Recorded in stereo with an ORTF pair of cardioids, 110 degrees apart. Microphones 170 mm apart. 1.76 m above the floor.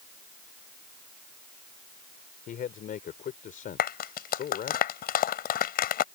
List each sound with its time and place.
2.5 s a man speaking: 55° left
3.8 s a clap: 60° left